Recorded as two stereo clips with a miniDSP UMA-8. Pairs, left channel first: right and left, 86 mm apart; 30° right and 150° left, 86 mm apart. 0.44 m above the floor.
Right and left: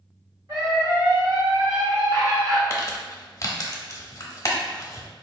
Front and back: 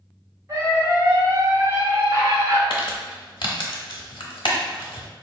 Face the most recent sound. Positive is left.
turn(degrees=-40)